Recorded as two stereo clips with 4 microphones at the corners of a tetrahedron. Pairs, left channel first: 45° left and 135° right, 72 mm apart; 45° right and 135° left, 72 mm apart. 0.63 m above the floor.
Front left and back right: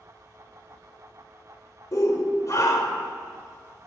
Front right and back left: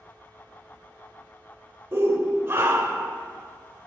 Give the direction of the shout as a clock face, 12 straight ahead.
9 o'clock.